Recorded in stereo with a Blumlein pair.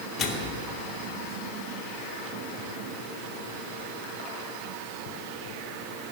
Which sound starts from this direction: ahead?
A microwave, at 0.2 s.